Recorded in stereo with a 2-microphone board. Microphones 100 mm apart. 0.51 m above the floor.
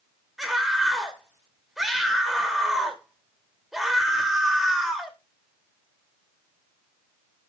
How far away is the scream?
About 2 m.